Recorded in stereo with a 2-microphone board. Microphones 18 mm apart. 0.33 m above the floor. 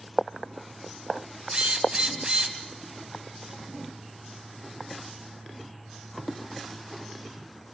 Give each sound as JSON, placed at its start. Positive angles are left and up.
{"t": 1.5, "sound": "a drill", "side_deg": -55, "distance_m": 2.0}